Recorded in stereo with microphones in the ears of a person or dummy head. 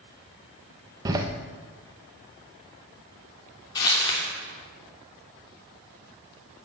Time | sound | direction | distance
1.1 | a door slam | 20° right (ahead or behind) | 1.1 m
3.8 | crumpling | 25° left (ahead or behind) | 3 m